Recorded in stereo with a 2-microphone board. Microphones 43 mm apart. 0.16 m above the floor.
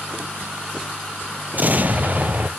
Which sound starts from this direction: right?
An explosion, at 1.5 s.